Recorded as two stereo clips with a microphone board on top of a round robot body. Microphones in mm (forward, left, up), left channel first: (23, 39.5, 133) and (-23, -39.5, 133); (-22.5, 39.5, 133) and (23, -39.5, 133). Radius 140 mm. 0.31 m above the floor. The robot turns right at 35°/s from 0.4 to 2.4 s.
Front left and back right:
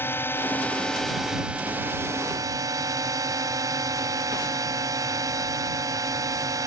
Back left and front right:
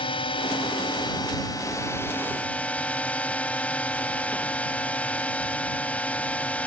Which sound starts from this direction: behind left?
A drone, at 0.0 s.